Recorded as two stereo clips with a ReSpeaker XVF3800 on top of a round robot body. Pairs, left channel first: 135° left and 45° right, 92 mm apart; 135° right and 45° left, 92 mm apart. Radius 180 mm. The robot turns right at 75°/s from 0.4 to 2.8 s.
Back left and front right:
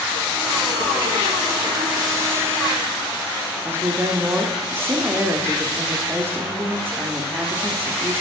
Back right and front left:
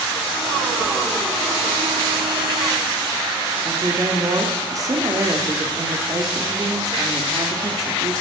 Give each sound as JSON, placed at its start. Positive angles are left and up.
{"t": 3.6, "sound": "a woman speaking", "azimuth_deg": 15, "distance_m": 1.9}